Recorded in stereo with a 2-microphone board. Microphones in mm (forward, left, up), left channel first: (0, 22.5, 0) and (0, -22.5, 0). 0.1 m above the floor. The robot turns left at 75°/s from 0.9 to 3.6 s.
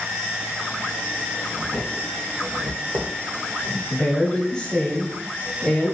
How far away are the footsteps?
About 1.8 m.